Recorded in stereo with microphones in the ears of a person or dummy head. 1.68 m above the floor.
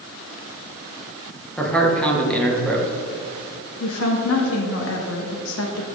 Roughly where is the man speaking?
Centre.